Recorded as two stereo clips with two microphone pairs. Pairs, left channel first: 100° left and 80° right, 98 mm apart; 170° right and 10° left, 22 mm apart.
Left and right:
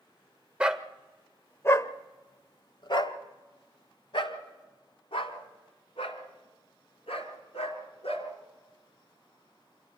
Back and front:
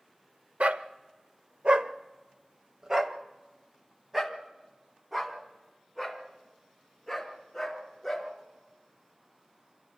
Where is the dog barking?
Straight ahead, 0.8 m; by 8.3 s 95° left, 4 m.